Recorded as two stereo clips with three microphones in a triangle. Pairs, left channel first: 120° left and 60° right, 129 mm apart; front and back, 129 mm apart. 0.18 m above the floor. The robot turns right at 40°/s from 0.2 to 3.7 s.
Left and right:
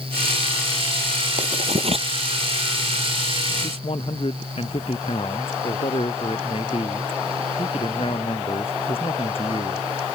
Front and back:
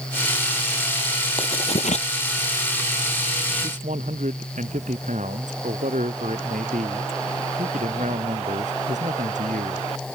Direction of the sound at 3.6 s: 160° left.